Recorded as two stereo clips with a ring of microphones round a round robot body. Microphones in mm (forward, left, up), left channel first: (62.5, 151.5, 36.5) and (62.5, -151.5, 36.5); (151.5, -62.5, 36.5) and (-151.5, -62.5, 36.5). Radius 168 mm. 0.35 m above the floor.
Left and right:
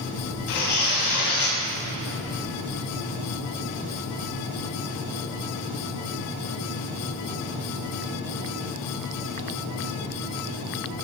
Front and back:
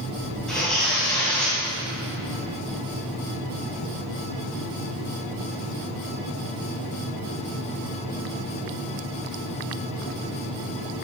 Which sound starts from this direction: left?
Tearing paper, at 0.5 s.